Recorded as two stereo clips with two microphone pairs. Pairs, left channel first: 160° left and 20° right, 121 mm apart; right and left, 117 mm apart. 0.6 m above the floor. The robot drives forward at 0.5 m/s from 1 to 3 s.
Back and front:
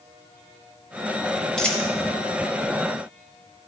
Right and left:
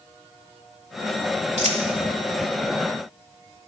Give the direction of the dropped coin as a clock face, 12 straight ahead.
9 o'clock.